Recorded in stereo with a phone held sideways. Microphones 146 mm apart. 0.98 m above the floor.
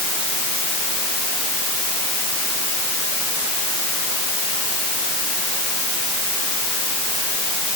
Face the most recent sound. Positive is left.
No sound to turn to.